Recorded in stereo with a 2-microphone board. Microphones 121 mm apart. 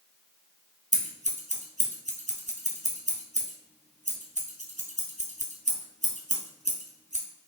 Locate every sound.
0.9 s scissors: 85° right, 1.2 m